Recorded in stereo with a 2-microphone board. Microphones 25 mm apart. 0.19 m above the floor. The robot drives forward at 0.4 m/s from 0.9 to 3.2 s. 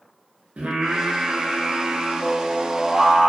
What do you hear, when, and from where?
0.6 s singing: 70° right (ahead or behind), 0.6 m; by 3.3 s 30° right (ahead or behind), 1.2 m